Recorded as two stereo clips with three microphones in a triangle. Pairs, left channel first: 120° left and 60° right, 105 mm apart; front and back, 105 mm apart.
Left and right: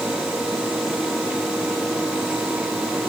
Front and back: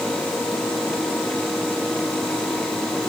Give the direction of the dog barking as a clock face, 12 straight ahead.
No dog barking in this recording.